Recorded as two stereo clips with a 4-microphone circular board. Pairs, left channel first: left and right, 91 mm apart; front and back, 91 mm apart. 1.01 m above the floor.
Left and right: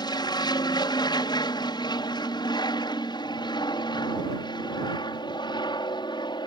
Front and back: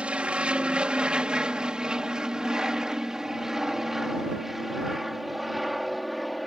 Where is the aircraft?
105° left; by 6.5 s 90° left.